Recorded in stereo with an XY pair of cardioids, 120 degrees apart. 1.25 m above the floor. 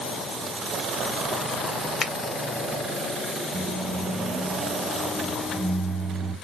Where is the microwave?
35° right, 1.1 m.